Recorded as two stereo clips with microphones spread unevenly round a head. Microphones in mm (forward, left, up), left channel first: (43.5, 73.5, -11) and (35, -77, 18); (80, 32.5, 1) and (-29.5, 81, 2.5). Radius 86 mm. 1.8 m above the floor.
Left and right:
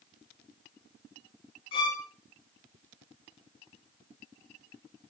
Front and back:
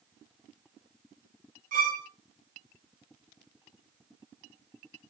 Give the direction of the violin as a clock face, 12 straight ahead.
7 o'clock.